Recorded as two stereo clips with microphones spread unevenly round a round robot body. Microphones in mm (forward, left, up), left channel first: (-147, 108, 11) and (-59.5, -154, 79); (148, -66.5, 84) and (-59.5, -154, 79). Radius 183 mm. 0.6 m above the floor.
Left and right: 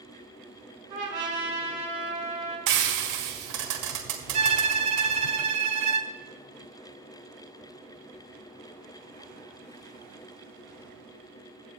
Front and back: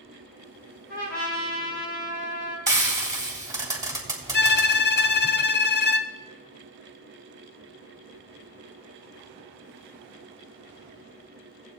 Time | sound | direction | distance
0.9 | a trumpet | 5° right | 6 m
2.7 | frying | 85° right | 3.5 m
4.3 | a violin | 5° left | 0.7 m